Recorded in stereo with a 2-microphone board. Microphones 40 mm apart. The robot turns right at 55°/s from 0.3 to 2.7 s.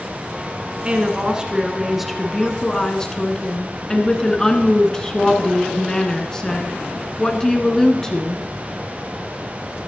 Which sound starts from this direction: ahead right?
A woman speaking, at 0.8 s.